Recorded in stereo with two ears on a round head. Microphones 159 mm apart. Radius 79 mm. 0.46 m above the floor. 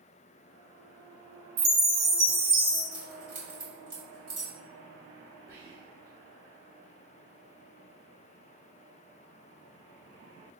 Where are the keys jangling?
30° right (ahead or behind), 1.9 m.